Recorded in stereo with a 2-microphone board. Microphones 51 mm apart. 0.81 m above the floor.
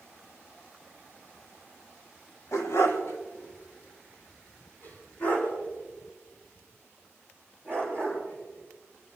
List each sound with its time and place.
2.5 s a dog barking: 80° left, 1.6 m; by 9.2 s 30° left (ahead or behind), 10 m